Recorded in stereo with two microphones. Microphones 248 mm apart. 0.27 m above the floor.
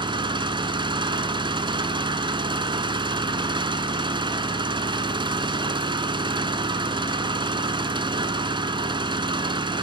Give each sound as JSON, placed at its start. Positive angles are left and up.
{"t": 0.0, "sound": "an engine running", "side_deg": -20, "distance_m": 1.4}